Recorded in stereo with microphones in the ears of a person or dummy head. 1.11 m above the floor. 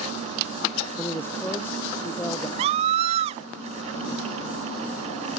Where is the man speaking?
10° left (ahead or behind).